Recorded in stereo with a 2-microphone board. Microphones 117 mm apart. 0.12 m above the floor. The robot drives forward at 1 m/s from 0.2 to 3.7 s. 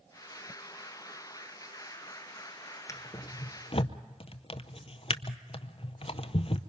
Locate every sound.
2.9 s a drawer: 25° left (ahead or behind), 1.3 m; by 6.6 s 50° left (ahead or behind), 0.6 m